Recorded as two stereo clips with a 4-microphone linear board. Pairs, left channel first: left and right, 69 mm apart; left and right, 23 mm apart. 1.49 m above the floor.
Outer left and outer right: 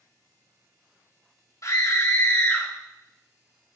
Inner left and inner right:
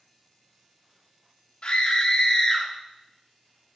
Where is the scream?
55° left (ahead or behind), 3.5 m; by 2.7 s 25° left (ahead or behind), 3 m.